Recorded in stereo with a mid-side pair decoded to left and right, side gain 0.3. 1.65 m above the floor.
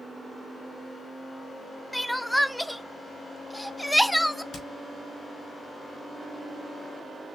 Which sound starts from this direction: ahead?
Crying, at 1.9 s.